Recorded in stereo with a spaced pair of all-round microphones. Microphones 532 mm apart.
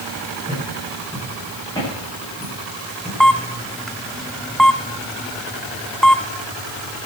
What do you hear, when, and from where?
0.5 s footsteps: 10° left (ahead or behind), 10 m; by 3.1 s 5° left (ahead or behind), 10.5 m
3.2 s a camera shutter: centre (ahead or behind), 0.7 m